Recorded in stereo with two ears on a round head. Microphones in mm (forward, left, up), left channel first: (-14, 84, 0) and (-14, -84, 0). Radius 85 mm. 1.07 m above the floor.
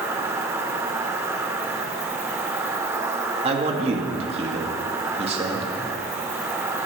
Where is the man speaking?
30° right (ahead or behind), 2.5 m.